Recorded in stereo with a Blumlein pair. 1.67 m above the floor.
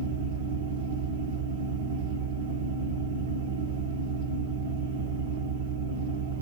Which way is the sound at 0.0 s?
60° right.